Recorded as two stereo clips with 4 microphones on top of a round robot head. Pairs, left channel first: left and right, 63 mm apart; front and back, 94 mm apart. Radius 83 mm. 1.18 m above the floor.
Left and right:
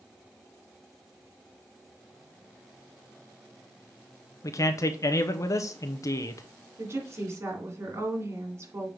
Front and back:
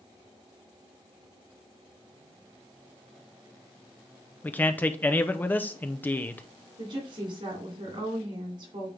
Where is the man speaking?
65° left, 0.7 m.